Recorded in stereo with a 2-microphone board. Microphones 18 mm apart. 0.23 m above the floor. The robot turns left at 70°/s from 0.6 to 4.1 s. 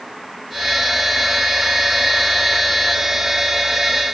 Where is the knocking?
I don't hear knocking.